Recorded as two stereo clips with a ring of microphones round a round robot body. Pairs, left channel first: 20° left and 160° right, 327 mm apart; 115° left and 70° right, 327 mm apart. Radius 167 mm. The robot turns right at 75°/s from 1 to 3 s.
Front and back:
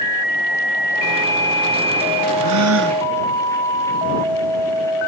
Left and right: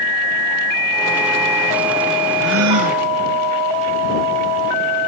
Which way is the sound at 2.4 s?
130° right.